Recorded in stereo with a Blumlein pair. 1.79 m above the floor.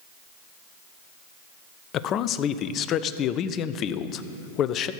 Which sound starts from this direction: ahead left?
A man speaking, at 1.9 s.